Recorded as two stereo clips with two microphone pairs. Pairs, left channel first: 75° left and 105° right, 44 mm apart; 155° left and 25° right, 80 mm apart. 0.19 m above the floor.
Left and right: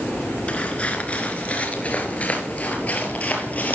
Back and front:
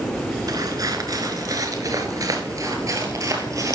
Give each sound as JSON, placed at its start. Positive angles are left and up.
{"t": 0.5, "sound": "footsteps", "azimuth_deg": 15, "distance_m": 3.5}